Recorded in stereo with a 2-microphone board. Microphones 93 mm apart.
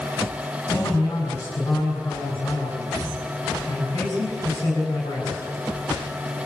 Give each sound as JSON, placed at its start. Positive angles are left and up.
{"t": 0.7, "sound": "a man speaking", "side_deg": 35, "distance_m": 6.5}